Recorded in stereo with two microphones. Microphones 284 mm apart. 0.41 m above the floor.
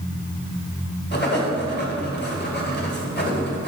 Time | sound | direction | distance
1.1 | writing | 35° left (ahead or behind) | 1.8 m